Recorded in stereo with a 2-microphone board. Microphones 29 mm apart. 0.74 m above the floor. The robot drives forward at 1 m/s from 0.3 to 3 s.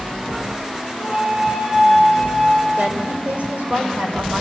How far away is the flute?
About 3 m.